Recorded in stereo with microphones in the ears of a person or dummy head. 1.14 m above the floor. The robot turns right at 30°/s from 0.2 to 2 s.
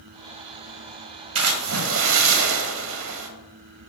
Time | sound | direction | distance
1.4 | a splash | 80° right | 1.2 m